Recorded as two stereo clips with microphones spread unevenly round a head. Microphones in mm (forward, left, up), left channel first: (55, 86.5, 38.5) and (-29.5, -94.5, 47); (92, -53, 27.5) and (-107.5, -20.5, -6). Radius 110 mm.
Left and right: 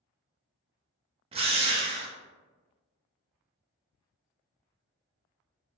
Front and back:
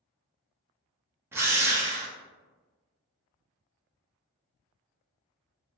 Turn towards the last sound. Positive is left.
turn(degrees=-145)